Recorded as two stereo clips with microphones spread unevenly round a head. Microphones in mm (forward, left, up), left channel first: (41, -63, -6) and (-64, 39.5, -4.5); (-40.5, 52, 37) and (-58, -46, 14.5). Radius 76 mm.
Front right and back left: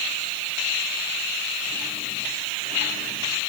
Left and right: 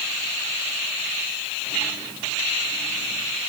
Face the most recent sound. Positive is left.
No sound to turn to.